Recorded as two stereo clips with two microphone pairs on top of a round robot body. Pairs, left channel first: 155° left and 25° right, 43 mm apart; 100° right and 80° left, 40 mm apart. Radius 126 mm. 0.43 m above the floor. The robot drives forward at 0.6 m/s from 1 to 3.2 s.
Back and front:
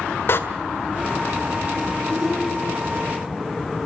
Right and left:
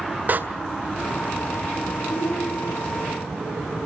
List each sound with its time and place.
0.3 s a door slam: 125° left, 2 m
2.1 s a shout: 105° right, 5 m; by 3.0 s 110° right, 5.5 m